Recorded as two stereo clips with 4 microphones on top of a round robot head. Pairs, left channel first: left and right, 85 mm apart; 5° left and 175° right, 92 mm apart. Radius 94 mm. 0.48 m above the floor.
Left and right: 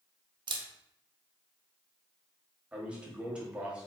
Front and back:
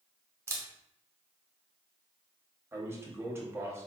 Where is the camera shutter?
115° right, 0.6 m.